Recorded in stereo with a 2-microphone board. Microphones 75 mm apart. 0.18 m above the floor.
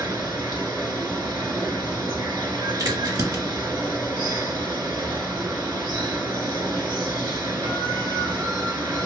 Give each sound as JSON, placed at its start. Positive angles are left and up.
{"t": 0.0, "sound": "running water", "side_deg": -65, "distance_m": 1.3}
{"t": 2.8, "sound": "a crack", "side_deg": -50, "distance_m": 2.0}